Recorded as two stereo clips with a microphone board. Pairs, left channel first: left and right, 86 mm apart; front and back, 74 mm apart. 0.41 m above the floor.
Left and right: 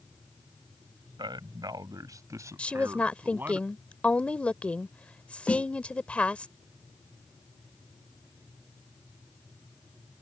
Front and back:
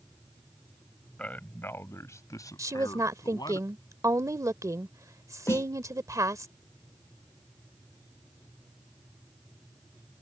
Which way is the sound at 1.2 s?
70° right.